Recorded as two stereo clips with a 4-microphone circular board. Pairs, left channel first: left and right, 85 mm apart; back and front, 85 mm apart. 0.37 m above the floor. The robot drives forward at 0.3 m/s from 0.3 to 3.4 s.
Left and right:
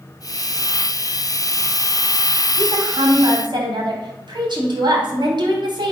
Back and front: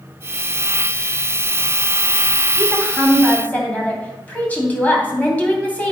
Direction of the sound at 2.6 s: 105° right.